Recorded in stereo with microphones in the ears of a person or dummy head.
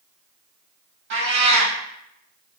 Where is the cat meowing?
65° right (ahead or behind), 1.9 m.